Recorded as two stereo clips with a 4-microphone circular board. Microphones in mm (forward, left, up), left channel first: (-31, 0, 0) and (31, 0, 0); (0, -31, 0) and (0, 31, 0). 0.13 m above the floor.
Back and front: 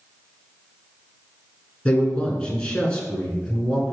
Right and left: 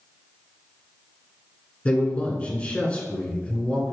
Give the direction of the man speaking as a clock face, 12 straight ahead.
4 o'clock.